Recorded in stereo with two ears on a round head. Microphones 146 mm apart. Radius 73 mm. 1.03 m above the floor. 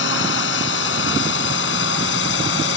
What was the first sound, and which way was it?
A drone, 85° left.